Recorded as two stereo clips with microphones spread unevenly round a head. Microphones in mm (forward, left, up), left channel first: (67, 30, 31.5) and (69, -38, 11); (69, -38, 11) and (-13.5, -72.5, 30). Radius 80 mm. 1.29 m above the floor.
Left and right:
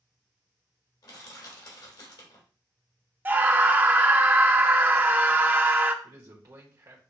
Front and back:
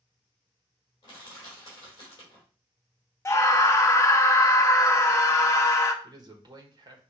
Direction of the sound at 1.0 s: 80° left.